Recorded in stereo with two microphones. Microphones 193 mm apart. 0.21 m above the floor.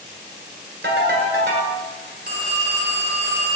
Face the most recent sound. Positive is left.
turn(degrees=-55)  # may be behind; listen again after turning